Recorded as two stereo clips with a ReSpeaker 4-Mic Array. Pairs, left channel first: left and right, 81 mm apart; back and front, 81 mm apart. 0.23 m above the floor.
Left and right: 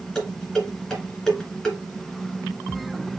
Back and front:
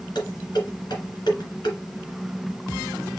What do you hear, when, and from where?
0.1 s dishes clattering: 175° left, 2.0 m